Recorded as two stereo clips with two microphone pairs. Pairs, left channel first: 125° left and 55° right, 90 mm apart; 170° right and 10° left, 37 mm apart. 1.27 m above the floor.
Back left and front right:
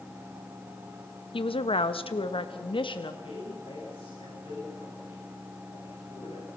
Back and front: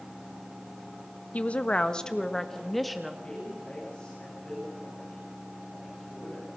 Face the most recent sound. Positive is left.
turn(degrees=125)